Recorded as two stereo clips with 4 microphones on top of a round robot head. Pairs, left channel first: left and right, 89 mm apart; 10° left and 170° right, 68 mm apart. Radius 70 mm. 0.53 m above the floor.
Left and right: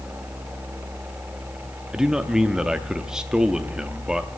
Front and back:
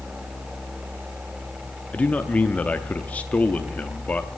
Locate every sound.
1.9 s a man speaking: 15° right, 0.6 m